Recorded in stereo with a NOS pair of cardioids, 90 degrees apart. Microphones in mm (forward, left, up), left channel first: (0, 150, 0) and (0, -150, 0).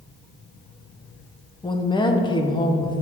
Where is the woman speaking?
15° left, 1.0 m.